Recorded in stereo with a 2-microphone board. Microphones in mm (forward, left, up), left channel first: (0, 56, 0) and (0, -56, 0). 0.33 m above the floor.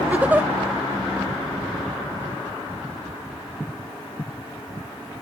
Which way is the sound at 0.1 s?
15° right (ahead or behind).